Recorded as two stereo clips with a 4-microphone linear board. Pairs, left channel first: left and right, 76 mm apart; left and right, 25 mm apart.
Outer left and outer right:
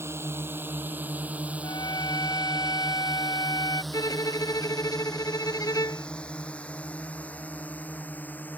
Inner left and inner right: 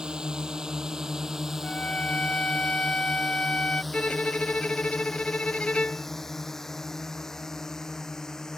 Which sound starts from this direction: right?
A drone, at 0.0 s.